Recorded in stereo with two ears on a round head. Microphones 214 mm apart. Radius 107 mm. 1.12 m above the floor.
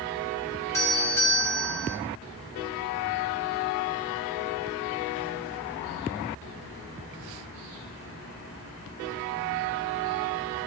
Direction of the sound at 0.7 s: 15° left (ahead or behind).